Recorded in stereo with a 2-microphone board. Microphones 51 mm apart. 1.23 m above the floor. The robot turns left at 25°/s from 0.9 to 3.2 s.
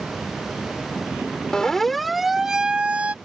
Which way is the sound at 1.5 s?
15° left (ahead or behind).